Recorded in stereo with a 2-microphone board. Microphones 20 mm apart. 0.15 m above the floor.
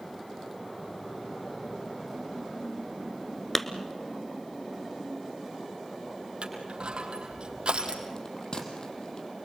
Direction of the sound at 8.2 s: 45° left (ahead or behind).